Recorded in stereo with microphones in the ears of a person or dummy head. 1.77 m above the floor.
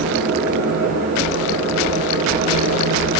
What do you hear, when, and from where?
0.0 s a fan: 55° right (ahead or behind), 6 m